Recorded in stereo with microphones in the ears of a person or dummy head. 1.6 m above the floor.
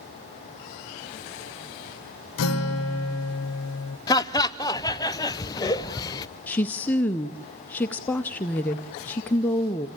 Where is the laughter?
20° left (ahead or behind), 0.8 m.